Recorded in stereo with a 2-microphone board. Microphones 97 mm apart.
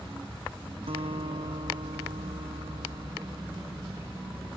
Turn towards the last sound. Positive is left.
turn(degrees=-75)  # may be behind; listen again after turning